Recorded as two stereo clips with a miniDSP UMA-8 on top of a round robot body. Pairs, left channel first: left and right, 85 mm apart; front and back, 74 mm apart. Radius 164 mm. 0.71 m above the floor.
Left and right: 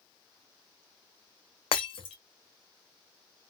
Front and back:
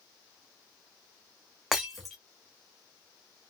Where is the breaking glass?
90° left, 0.7 m.